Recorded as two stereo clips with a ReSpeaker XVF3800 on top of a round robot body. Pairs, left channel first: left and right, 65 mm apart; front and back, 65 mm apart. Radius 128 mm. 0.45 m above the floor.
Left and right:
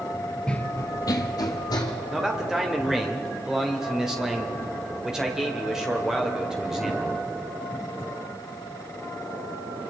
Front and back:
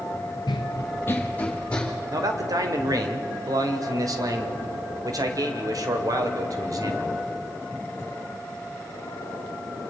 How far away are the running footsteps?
About 0.6 m.